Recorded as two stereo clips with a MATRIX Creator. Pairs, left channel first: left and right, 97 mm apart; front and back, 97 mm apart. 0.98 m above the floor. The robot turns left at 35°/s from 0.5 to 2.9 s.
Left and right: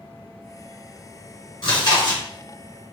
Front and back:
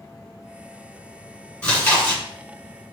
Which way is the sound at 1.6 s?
75° left.